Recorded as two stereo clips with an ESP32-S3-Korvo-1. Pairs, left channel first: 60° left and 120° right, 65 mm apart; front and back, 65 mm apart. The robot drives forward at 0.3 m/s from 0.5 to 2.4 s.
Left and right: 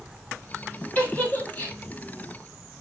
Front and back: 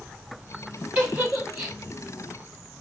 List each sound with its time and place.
0.9 s a giggle: 120° left, 2.5 m; by 1.8 s 125° left, 2.5 m